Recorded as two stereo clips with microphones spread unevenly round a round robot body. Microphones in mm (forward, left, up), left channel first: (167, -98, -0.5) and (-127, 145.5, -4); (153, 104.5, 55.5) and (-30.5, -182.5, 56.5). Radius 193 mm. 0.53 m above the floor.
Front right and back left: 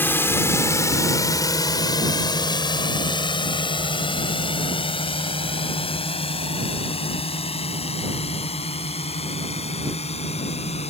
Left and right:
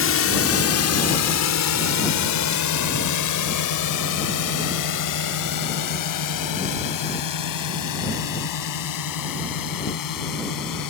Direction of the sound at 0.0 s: 40° left.